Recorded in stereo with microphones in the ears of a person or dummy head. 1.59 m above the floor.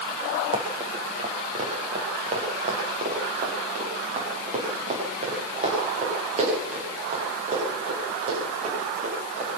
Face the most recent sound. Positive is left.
turn(degrees=-45)  # may be behind; listen again after turning